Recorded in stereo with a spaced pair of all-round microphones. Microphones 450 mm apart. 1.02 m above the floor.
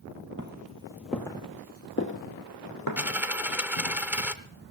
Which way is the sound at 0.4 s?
25° right (ahead or behind).